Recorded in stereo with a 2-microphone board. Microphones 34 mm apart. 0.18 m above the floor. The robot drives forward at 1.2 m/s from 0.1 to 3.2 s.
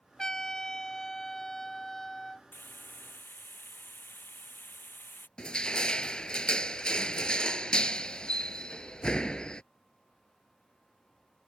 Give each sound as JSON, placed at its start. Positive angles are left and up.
{"t": 0.2, "sound": "a trumpet", "side_deg": 20}
{"t": 2.5, "sound": "frying", "side_deg": 80}
{"t": 5.4, "sound": "crushing", "side_deg": 25}